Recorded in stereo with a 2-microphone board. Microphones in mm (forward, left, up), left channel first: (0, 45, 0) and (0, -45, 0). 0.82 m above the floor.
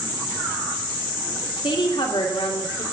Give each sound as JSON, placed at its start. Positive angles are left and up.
{"t": 1.6, "sound": "a woman speaking", "side_deg": 70, "distance_m": 2.5}